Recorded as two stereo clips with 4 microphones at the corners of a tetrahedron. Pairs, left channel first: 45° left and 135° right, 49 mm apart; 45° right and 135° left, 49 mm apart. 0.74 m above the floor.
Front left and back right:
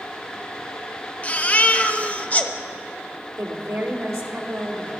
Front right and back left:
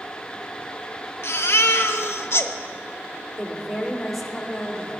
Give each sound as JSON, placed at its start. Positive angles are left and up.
{"t": 1.2, "sound": "a baby crying", "azimuth_deg": -15, "distance_m": 0.6}
{"t": 3.4, "sound": "a woman speaking", "azimuth_deg": -135, "distance_m": 1.9}